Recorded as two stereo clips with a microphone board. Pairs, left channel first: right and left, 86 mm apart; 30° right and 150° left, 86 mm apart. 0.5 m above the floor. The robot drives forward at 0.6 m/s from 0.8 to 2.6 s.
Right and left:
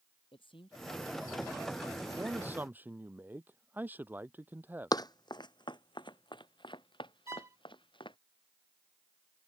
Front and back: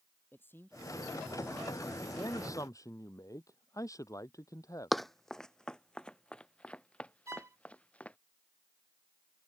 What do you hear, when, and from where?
0.3 s a man speaking: 95° right; by 2.0 s 100° right
2.1 s a man speaking: 20° left
4.9 s running footsteps: 120° right; by 8.2 s 105° right
7.3 s a violin: 120° left